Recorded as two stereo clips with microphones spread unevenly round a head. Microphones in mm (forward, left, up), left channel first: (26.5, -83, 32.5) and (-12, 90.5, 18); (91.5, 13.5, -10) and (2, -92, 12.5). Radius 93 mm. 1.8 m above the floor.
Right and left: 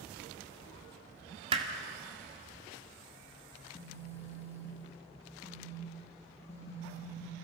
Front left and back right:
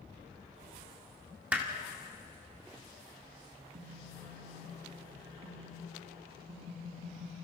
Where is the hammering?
160° left, 1.9 m.